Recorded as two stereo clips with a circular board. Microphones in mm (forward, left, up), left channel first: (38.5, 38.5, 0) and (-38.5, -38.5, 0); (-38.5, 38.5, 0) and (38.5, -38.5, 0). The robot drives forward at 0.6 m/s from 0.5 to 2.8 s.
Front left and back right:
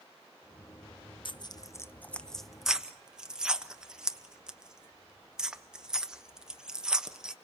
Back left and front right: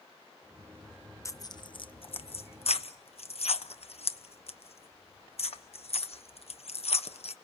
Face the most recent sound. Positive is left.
turn(degrees=140)